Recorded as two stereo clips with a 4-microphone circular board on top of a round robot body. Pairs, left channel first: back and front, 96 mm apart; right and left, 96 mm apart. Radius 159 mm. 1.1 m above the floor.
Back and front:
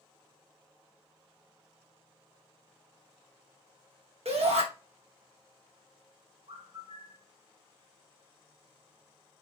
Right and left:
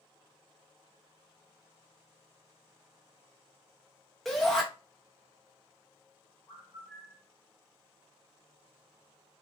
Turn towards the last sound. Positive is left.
turn(degrees=20)